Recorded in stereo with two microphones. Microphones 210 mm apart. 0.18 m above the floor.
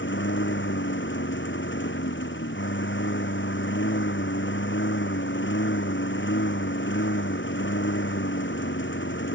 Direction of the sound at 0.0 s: 65° left (ahead or behind).